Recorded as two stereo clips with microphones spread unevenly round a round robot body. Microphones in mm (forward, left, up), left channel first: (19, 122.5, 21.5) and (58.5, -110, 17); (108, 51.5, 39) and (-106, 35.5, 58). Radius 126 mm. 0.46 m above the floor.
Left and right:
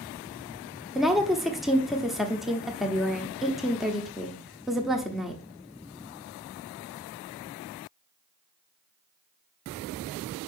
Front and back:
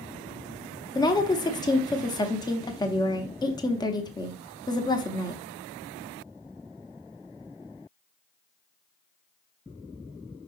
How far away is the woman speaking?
About 0.9 m.